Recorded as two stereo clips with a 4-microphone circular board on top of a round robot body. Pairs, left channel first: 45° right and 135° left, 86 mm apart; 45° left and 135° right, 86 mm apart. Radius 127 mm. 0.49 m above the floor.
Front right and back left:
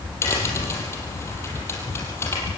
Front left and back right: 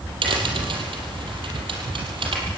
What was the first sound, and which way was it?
A crack, 110° right.